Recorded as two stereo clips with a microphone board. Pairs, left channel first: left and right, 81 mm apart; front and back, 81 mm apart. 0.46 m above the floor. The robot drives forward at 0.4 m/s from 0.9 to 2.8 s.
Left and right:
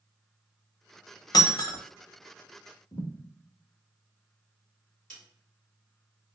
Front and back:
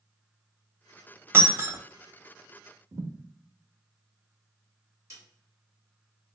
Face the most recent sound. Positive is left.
turn(degrees=165)